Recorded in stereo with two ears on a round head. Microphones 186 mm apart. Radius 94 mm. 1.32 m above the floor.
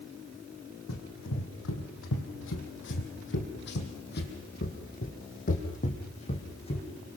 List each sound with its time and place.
0.9 s running footsteps: 70° left (ahead or behind), 4 m; by 6.9 s 30° left (ahead or behind), 4 m